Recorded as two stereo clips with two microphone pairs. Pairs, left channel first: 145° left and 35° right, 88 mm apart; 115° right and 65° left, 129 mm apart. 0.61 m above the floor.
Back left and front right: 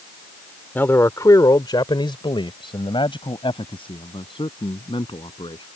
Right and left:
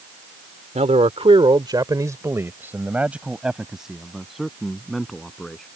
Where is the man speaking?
80° left; by 5.7 s 160° left.